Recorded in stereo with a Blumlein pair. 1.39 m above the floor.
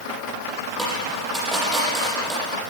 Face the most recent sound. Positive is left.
turn(degrees=-5)